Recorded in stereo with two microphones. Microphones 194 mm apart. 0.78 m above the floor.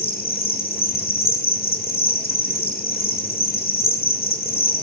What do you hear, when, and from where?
0.0 s an insect: 50° left (ahead or behind), 0.9 m